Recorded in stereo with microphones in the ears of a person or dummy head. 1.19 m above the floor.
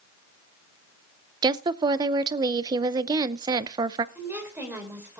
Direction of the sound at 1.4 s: 25° right (ahead or behind).